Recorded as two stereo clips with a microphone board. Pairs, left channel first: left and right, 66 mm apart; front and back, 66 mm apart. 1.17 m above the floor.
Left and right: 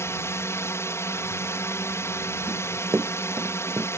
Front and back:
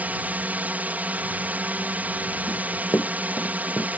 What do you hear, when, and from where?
0.0 s a drone: 120° left
2.5 s running footsteps: 40° right; by 3.9 s 45° right